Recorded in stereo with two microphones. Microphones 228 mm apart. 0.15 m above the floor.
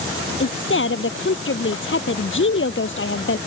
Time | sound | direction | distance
0.4 | a woman speaking | 60° left (ahead or behind) | ?